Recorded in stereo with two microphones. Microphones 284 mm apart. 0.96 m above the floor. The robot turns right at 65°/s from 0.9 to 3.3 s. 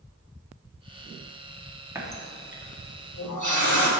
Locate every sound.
1.9 s a running tap: 10° right (ahead or behind), 1.0 m; by 3.9 s 80° left, 1.0 m